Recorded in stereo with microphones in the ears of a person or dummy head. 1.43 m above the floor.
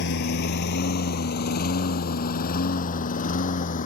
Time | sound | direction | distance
0.0 | a lawn mower | 60° left (ahead or behind) | ?